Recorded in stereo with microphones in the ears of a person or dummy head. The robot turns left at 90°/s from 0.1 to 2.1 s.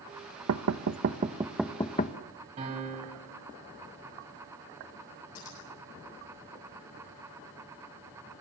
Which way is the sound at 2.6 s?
35° right (ahead or behind).